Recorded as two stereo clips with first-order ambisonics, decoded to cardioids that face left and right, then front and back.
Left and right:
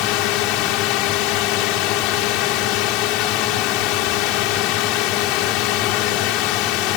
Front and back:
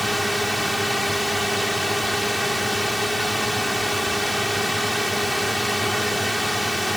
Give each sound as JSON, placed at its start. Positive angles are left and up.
{"t": 0.0, "sound": "a drone", "azimuth_deg": 90}